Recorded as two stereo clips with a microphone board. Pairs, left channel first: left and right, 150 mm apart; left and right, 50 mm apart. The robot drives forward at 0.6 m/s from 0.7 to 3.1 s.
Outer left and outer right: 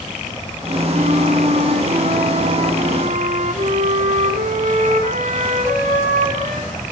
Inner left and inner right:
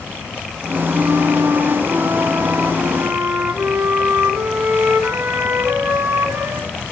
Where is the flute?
65° right (ahead or behind), 2.5 m.